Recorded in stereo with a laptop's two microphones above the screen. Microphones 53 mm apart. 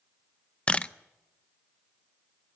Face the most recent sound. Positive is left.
turn(degrees=25)  # may be behind; listen again after turning